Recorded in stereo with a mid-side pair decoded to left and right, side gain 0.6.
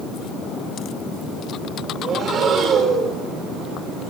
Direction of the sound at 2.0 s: 50° right.